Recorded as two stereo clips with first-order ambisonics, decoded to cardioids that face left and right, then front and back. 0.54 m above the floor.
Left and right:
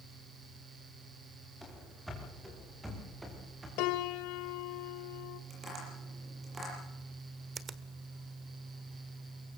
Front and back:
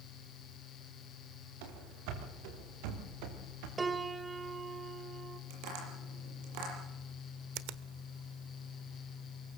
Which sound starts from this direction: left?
A piano, at 3.8 s.